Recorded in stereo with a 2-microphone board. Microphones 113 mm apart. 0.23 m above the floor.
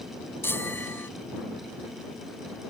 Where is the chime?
20° left (ahead or behind).